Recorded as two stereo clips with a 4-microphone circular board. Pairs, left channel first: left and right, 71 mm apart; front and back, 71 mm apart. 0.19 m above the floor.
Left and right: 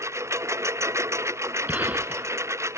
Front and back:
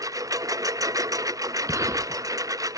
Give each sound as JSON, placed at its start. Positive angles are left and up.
{"t": 0.0, "sound": "a lawn mower", "azimuth_deg": -140}
{"t": 1.7, "sound": "a gunshot", "azimuth_deg": -150}